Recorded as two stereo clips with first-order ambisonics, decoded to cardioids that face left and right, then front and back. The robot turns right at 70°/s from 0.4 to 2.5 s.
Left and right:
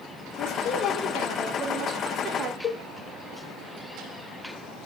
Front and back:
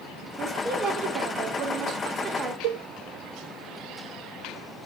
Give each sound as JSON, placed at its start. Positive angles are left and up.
{"t": 0.4, "sound": "a woman speaking", "azimuth_deg": 105, "distance_m": 1.7}
{"t": 2.6, "sound": "a cowbell", "azimuth_deg": 155, "distance_m": 0.5}